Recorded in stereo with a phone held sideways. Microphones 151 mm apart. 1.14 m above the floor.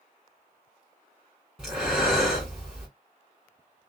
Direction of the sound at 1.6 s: 5° right (ahead or behind).